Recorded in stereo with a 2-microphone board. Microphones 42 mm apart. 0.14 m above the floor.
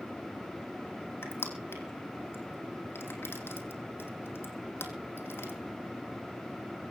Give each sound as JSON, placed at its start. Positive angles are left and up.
{"t": 1.2, "sound": "crushing", "side_deg": 65, "distance_m": 3.0}